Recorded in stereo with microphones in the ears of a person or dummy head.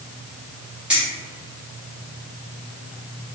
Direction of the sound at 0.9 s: 10° right (ahead or behind).